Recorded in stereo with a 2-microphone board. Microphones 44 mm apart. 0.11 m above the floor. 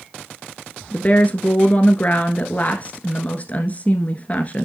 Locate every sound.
0.9 s a woman speaking: 35° left (ahead or behind), 1.3 m